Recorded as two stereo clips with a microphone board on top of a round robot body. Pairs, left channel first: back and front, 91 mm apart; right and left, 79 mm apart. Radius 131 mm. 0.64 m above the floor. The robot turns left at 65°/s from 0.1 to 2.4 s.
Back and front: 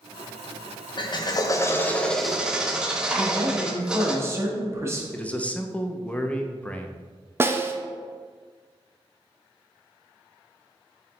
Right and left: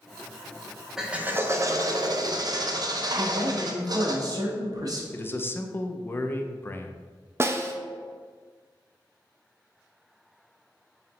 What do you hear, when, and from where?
1.0 s a drill: 170° left, 0.6 m; by 4.2 s 80° left, 0.6 m
3.2 s a man speaking: 55° left, 1.0 m
5.1 s a man speaking: 120° right, 0.5 m
7.4 s a snare drum: 50° left, 0.6 m